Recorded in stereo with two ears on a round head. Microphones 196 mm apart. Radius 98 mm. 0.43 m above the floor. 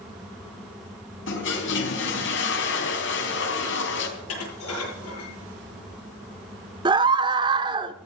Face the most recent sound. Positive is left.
turn(degrees=-20)  # may be behind; listen again after turning